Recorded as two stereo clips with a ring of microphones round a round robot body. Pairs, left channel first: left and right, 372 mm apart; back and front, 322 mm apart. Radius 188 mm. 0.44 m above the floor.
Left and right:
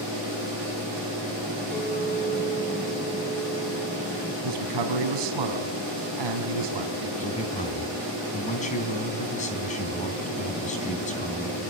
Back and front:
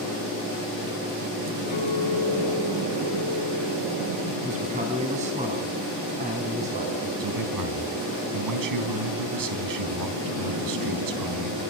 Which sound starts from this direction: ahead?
A man speaking, at 7.2 s.